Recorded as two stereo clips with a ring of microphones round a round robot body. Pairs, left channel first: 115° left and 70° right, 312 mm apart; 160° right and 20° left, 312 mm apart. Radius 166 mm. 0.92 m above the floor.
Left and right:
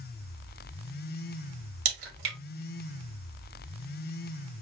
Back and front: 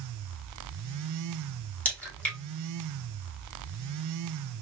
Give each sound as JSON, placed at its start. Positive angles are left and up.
{"t": 1.9, "sound": "a crack", "azimuth_deg": -70, "distance_m": 2.5}